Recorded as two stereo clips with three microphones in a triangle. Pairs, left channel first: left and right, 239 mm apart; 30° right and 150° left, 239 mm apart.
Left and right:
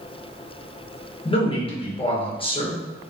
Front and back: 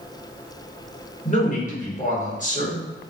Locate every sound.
1.2 s a man speaking: 20° left, 0.9 m